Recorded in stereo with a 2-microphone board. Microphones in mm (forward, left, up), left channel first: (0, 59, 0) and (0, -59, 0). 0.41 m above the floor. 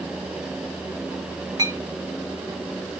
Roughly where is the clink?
Right.